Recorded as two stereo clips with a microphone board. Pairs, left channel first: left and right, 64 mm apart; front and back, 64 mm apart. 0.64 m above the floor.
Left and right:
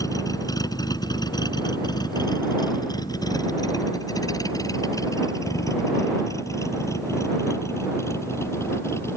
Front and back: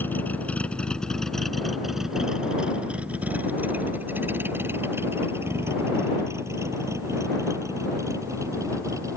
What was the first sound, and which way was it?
A vehicle, 60° left.